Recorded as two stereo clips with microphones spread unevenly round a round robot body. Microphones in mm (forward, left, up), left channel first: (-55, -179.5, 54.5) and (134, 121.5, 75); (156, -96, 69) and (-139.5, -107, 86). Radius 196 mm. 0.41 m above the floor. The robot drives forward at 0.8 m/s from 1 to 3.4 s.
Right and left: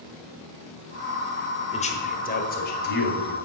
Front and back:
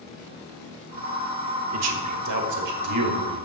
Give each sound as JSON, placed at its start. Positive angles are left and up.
{"t": 1.7, "sound": "a man speaking", "azimuth_deg": 175, "distance_m": 1.1}